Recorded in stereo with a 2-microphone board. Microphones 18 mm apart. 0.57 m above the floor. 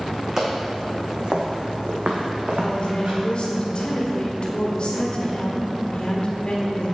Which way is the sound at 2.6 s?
50° left (ahead or behind).